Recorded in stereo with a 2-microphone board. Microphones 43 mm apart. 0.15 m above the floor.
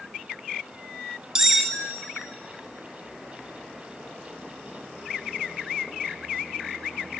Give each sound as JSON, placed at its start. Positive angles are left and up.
{"t": 1.4, "sound": "cutlery clinking", "side_deg": -15, "distance_m": 0.6}